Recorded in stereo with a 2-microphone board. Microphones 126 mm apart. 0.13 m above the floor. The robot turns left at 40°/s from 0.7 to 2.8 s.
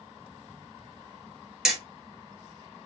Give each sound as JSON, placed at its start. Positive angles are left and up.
{"t": 1.6, "sound": "hammering", "side_deg": -5, "distance_m": 1.0}